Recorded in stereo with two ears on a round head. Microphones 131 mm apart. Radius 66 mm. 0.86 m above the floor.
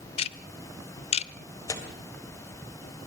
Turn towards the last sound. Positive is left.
turn(degrees=20)  # may be behind; listen again after turning